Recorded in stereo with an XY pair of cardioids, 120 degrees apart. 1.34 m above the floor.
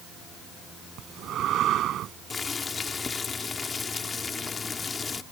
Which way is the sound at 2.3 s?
30° left.